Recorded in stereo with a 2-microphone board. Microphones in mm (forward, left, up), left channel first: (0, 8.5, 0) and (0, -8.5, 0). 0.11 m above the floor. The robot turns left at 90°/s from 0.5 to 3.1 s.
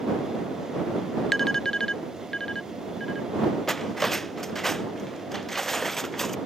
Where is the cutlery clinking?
15° left (ahead or behind).